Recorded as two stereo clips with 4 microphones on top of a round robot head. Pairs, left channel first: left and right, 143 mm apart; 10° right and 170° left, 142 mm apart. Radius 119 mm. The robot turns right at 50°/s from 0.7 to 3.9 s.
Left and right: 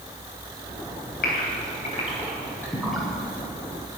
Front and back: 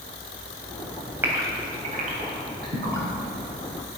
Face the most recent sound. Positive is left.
turn(degrees=-130)